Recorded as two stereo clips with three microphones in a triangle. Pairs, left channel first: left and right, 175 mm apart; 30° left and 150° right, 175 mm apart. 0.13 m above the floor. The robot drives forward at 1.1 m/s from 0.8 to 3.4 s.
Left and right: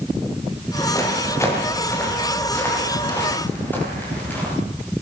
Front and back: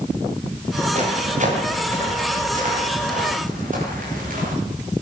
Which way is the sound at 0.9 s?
160° left.